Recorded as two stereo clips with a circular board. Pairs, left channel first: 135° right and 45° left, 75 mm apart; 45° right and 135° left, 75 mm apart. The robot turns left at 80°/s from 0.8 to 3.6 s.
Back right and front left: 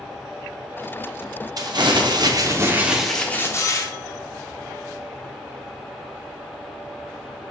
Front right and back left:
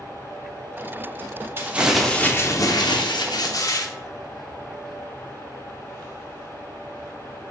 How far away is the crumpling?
About 0.7 m.